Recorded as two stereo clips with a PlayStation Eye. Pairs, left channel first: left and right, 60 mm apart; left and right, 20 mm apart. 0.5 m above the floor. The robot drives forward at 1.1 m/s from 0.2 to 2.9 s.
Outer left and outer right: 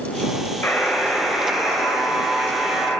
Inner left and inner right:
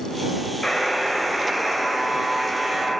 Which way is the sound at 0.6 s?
40° left (ahead or behind).